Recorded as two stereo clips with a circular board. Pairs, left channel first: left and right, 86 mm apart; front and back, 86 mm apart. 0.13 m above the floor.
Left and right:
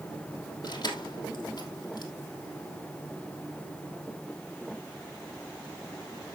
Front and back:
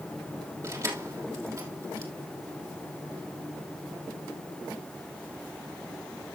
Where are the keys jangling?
130° left, 3 m.